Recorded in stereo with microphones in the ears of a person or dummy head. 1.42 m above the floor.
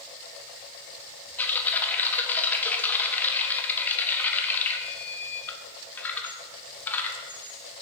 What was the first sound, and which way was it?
Typing on a keyboard, 10° left (ahead or behind).